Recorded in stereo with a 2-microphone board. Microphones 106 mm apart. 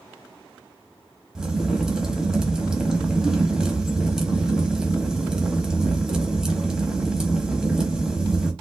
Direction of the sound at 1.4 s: 5° right (ahead or behind).